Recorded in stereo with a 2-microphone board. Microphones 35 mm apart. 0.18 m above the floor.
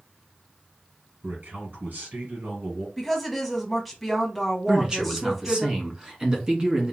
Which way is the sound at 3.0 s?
Centre (ahead or behind).